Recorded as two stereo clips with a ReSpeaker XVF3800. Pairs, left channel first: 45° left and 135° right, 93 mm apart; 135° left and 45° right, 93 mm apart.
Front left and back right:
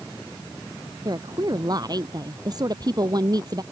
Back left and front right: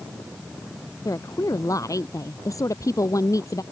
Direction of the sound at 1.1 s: 175° right.